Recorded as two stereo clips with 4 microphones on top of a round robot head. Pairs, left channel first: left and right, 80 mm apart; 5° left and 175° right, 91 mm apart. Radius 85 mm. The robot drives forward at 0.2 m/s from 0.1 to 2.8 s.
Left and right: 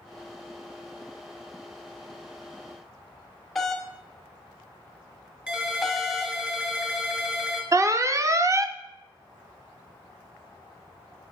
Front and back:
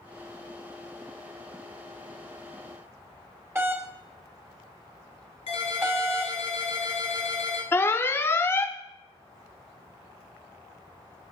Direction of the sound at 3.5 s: 175° left.